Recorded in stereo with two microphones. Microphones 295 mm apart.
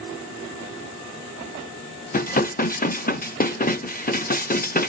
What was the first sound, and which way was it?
Dishes clattering, 30° left (ahead or behind).